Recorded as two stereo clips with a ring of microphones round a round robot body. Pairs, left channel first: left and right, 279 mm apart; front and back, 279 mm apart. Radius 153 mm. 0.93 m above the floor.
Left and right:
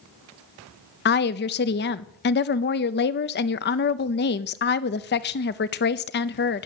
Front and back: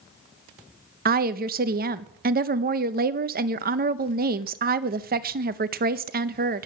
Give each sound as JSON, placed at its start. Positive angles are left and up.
{"t": 1.1, "sound": "a woman speaking", "azimuth_deg": 130, "distance_m": 0.7}